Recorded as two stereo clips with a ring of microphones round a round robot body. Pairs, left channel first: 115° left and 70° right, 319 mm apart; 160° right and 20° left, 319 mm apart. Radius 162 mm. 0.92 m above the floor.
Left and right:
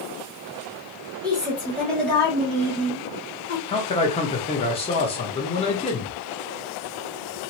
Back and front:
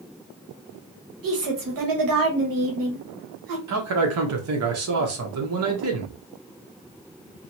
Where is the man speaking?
45° left, 1.0 m.